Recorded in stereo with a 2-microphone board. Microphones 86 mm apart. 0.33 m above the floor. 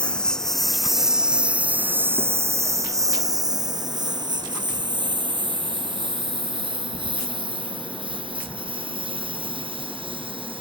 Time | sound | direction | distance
0.0 | a lawn mower | 10° left (ahead or behind) | ?